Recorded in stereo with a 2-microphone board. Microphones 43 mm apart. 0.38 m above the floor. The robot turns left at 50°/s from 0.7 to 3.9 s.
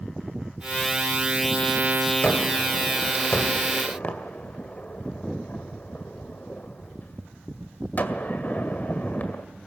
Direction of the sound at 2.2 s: 25° left (ahead or behind).